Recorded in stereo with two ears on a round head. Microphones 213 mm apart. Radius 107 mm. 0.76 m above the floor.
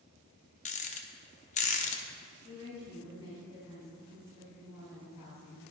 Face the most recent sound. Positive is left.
turn(degrees=75)  # may be behind; listen again after turning